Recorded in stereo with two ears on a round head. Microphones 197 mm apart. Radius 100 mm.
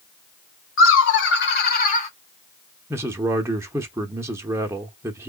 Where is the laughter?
65° left (ahead or behind), 2 m; by 2.1 s 30° left (ahead or behind), 1.2 m.